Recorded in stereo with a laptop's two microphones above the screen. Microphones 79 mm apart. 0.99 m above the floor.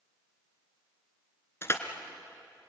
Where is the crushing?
35° left (ahead or behind), 2 m.